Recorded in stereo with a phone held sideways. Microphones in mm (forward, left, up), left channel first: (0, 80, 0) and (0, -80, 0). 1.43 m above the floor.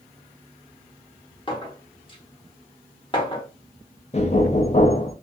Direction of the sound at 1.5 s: 30° left (ahead or behind).